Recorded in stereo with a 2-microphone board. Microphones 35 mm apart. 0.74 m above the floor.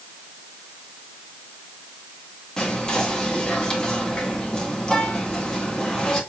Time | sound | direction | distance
2.6 | whispering | 25° left (ahead or behind) | 1.1 m